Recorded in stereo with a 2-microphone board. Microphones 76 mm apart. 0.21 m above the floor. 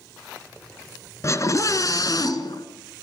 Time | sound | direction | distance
1.2 | a scream | 40° left (ahead or behind) | 2.5 m